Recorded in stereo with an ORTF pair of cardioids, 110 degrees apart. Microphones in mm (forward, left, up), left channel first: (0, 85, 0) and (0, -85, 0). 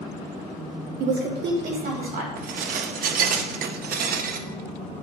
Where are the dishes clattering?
60° right, 0.6 m.